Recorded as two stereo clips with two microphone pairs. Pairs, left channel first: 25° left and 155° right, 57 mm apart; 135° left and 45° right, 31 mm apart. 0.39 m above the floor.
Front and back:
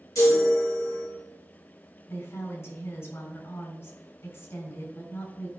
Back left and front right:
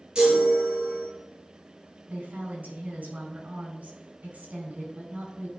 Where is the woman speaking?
10° right, 4 m.